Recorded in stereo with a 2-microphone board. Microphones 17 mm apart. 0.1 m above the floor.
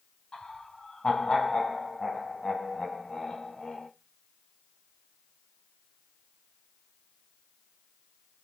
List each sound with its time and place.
0.3 s laughter: 55° left (ahead or behind), 2.5 m